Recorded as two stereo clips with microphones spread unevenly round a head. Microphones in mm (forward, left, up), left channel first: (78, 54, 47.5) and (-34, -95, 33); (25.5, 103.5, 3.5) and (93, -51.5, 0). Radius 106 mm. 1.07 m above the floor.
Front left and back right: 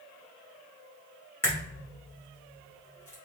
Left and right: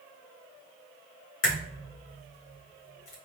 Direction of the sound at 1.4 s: 130° left.